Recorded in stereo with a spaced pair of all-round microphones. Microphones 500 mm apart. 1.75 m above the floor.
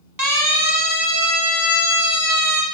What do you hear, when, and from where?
0.2 s a siren: 40° right (ahead or behind), 6 m; by 2.6 s 30° right (ahead or behind), 4.5 m